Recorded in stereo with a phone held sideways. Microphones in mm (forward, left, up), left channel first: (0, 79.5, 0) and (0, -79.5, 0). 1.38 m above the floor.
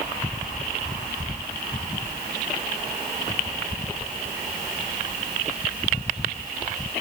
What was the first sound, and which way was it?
Only background noise.